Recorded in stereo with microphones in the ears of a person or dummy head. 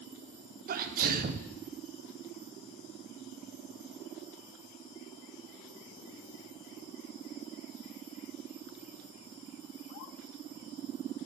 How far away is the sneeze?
About 0.5 m.